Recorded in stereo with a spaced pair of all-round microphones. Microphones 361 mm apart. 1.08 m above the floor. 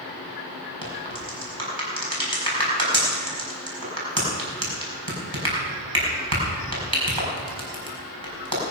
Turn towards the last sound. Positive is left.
turn(degrees=-80)